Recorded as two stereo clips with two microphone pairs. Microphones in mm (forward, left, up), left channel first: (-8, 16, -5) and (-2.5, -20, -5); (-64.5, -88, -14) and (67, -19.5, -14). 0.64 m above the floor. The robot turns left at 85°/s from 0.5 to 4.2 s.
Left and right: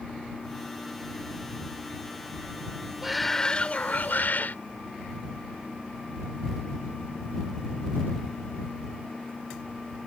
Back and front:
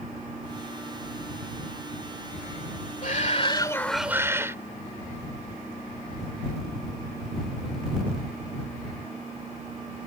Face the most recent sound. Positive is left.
turn(degrees=100)